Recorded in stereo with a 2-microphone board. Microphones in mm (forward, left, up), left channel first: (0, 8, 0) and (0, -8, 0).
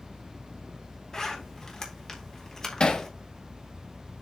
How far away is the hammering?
About 1.4 m.